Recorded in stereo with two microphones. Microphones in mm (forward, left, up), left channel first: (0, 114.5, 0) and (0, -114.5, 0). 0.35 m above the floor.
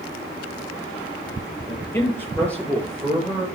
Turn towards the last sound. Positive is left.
turn(degrees=0)  # may be behind; listen again after turning